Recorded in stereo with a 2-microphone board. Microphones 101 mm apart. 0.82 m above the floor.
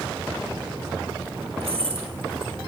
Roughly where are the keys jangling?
Right.